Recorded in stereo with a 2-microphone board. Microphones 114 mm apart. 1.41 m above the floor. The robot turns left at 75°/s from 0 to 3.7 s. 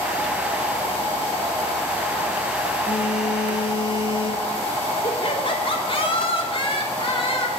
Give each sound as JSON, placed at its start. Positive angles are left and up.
{"t": 2.9, "sound": "a phone buzzing", "azimuth_deg": 130, "distance_m": 1.8}
{"t": 5.0, "sound": "laughter", "side_deg": 55, "distance_m": 3.0}